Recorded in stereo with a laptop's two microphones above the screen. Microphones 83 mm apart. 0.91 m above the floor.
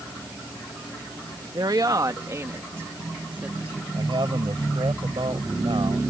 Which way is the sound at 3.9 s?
80° right.